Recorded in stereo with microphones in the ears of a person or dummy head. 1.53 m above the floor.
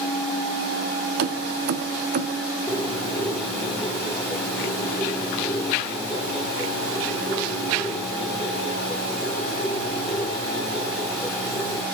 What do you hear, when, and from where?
1.2 s keys jangling: 50° right (ahead or behind), 0.6 m; by 2.4 s 45° right (ahead or behind), 1.0 m
2.7 s a bird: centre (ahead or behind), 2 m